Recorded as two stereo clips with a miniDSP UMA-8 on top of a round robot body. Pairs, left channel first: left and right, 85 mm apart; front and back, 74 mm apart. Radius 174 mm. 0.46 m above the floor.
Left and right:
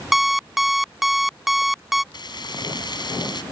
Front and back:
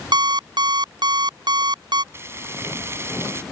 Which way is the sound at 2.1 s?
125° left.